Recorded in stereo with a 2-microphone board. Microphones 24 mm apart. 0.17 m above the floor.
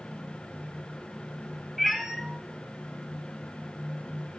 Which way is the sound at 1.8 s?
5° right (ahead or behind).